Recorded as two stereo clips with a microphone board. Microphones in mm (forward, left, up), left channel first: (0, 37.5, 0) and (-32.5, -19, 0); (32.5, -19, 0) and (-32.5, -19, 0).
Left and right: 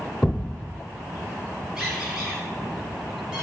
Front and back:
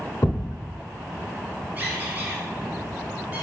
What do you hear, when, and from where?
0.2 s a thud: 25° right, 0.7 m
1.8 s a squeak: 175° left, 1.0 m